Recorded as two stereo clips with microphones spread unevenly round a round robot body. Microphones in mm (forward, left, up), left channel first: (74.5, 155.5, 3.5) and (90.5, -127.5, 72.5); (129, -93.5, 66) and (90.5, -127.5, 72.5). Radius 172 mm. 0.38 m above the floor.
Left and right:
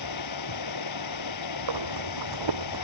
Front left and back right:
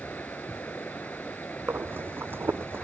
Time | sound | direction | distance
0.0 | running water | 120° left | ?
1.7 | breathing | 95° right | ?